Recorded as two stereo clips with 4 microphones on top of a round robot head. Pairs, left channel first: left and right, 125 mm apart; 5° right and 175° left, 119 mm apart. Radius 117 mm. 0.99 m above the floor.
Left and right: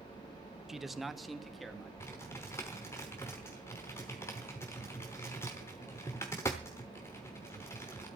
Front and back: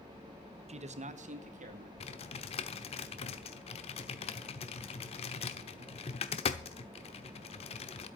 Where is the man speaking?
175° right, 1.1 m; by 1.9 s straight behind, 3 m.